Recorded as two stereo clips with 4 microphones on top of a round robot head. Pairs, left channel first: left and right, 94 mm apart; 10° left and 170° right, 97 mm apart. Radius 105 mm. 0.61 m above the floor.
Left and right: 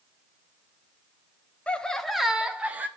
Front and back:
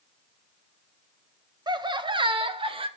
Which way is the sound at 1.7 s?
165° left.